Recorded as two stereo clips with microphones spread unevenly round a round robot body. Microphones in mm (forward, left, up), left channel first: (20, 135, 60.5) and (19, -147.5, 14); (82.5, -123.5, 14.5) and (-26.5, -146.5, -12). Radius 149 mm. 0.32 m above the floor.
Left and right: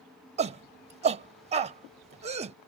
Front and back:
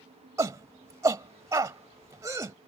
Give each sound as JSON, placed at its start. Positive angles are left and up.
{"t": 0.4, "sound": "a shout", "azimuth_deg": -135}